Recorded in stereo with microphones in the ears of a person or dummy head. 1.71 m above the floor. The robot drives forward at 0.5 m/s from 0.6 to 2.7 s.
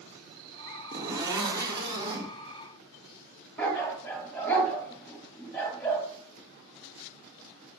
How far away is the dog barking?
About 3 m.